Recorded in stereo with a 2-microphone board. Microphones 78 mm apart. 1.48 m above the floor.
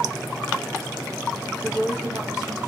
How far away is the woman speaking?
About 0.9 m.